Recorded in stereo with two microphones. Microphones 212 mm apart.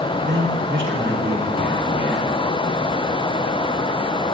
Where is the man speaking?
65° right (ahead or behind), 7 m.